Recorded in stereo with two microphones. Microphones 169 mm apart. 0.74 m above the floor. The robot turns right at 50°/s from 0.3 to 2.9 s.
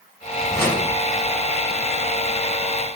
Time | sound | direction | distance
0.5 | a whoosh | 20° left (ahead or behind) | 1.3 m